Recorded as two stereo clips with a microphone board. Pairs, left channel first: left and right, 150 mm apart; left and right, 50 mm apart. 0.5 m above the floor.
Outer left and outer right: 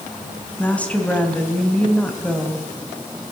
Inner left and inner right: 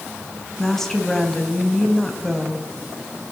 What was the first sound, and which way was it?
A woman speaking, 10° left (ahead or behind).